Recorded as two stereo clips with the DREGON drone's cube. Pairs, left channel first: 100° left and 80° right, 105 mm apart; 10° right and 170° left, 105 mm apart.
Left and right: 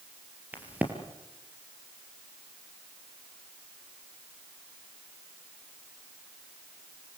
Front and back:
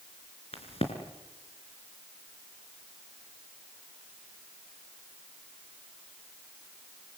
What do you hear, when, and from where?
0.5 s a crack: 5° right, 3.5 m